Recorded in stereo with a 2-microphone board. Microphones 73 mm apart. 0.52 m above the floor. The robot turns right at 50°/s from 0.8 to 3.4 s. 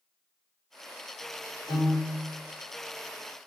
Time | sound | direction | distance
1.7 | a piano | 40° right (ahead or behind) | 1.7 m